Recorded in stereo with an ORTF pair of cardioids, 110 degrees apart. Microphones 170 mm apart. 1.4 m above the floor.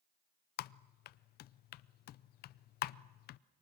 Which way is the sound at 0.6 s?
65° left.